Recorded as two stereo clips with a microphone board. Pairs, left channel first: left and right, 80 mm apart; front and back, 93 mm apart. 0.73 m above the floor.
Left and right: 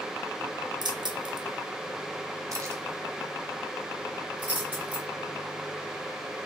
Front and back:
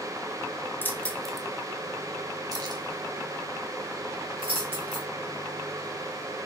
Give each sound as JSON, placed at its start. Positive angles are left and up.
{"t": 0.8, "sound": "keys jangling", "azimuth_deg": -65, "distance_m": 0.8}